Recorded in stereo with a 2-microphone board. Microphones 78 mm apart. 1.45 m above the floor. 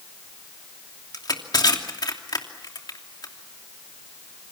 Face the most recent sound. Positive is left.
turn(degrees=60)  # may be behind; listen again after turning